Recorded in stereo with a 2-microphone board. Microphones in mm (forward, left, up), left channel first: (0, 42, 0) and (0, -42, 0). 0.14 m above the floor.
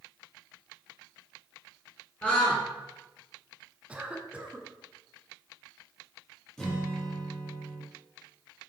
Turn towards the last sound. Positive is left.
turn(degrees=5)  # may be behind; listen again after turning